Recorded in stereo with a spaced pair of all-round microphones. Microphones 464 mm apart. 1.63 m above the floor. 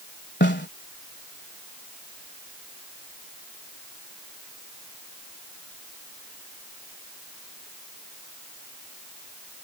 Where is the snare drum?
25° left (ahead or behind).